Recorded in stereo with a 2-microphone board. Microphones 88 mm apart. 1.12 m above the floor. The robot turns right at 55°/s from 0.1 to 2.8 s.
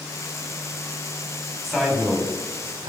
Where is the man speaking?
175° left, 3 m; by 2.9 s 125° right, 3 m.